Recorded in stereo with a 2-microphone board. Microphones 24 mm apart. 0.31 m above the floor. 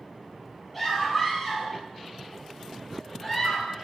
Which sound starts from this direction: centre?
A scream, at 0.7 s.